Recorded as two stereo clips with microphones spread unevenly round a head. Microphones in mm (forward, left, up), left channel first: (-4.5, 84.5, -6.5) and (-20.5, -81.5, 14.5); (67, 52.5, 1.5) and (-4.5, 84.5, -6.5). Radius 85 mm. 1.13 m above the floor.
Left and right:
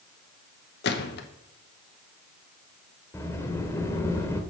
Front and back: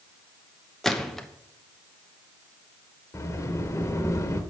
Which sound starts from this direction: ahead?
A sliding door, at 3.1 s.